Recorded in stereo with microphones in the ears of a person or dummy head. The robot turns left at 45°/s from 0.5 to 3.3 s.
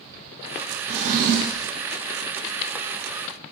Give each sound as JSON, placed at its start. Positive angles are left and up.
{"t": 0.9, "sound": "a drawer", "azimuth_deg": -35, "distance_m": 0.6}